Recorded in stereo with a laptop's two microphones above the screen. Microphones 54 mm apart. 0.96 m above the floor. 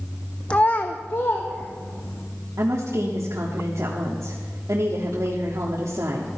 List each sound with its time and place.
0.5 s a child speaking: 20° left (ahead or behind), 0.5 m; by 2.2 s 50° left (ahead or behind), 3 m
2.6 s a woman speaking: 75° right (ahead or behind), 1.6 m